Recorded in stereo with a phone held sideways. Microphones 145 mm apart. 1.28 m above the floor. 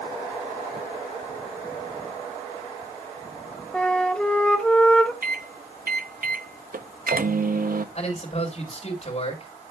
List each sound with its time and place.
3.7 s a flute: 5° left (ahead or behind), 1.3 m
5.2 s a microwave: 75° right (ahead or behind), 0.7 m
8.0 s a man speaking: 45° left (ahead or behind), 4 m